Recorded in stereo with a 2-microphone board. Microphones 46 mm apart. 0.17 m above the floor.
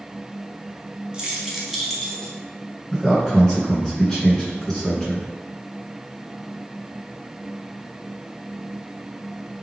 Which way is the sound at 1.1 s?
15° right (ahead or behind).